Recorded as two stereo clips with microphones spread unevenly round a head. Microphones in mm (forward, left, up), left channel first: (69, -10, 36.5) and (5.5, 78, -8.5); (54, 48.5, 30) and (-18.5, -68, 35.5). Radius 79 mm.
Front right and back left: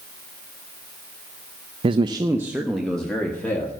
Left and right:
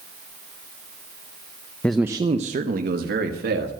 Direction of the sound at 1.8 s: 135° left.